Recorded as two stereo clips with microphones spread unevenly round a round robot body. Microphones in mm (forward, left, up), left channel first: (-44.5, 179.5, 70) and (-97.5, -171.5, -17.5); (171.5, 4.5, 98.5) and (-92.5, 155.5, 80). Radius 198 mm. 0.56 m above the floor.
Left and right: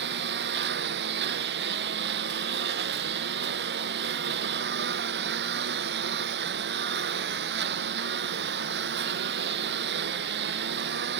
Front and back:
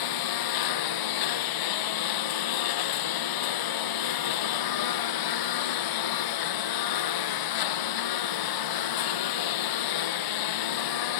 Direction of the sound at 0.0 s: 35° right.